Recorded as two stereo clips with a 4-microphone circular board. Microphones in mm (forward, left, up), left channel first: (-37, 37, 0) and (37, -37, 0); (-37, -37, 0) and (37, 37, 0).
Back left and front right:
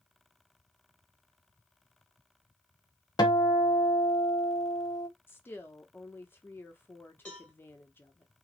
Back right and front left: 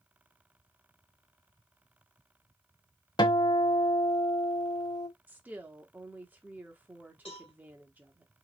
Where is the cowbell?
150° right, 1.5 m.